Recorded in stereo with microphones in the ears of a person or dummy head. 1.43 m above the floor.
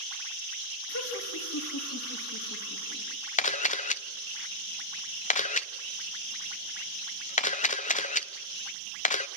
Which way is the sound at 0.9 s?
80° left.